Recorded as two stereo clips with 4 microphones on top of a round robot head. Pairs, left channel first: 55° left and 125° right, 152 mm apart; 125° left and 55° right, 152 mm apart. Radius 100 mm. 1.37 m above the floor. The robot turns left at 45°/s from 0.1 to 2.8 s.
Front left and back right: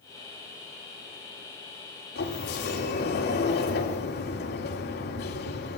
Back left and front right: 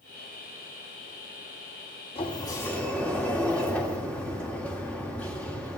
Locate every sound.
2.1 s a sliding door: 70° left, 3 m; by 5.8 s 40° left, 3 m